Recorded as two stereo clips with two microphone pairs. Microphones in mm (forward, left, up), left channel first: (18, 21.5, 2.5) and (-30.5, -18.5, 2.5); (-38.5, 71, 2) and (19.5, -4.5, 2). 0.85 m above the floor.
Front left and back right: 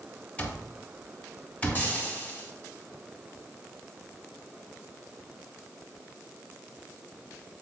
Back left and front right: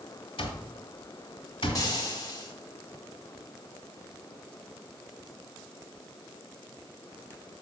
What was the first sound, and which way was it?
An alarm clock, 105° left.